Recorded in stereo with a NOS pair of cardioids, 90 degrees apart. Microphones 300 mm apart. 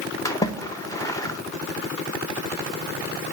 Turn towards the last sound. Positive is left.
turn(degrees=10)